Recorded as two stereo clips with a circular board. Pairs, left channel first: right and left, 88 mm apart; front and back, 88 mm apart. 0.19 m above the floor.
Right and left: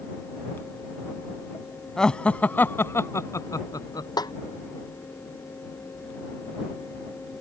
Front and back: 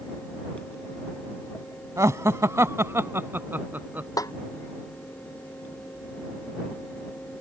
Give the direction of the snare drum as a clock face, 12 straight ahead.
2 o'clock.